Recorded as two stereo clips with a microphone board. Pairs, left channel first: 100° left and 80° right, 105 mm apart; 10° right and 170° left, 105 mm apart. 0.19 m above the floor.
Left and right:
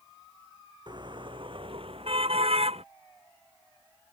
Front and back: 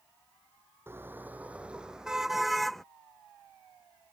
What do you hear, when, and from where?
0.9 s a car horn: 125° right; by 2.8 s 100° right